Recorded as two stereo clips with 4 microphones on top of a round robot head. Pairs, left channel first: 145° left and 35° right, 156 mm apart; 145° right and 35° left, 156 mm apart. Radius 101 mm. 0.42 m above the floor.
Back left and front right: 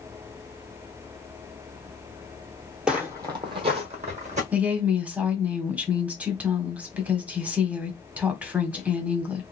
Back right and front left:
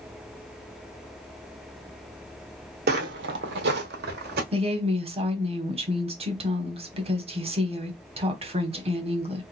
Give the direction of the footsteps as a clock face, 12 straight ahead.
10 o'clock.